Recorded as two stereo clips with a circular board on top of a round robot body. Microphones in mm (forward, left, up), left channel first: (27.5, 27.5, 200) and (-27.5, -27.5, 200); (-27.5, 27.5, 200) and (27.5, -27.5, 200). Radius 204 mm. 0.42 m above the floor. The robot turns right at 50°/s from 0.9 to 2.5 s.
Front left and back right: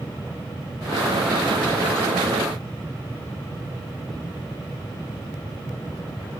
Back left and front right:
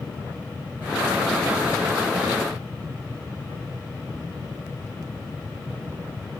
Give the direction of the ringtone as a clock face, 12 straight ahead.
I don't hear a ringtone.